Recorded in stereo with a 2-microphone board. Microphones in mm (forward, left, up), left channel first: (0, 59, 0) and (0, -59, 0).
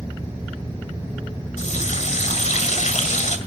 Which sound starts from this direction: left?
A running tap, at 1.6 s.